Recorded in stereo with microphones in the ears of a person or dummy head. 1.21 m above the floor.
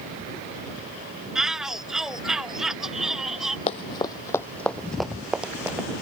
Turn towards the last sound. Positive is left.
turn(degrees=-10)  # may be behind; listen again after turning